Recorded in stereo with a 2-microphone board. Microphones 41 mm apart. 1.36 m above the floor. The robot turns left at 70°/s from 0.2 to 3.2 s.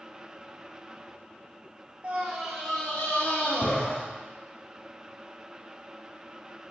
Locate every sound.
2.0 s a scream: 145° right, 1.9 m; by 4.0 s 135° left, 1.9 m